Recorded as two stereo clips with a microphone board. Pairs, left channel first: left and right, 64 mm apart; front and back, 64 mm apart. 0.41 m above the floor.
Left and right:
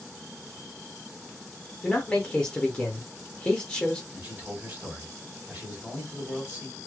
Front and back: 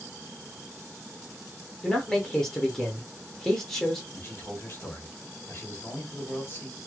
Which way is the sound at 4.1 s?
35° right.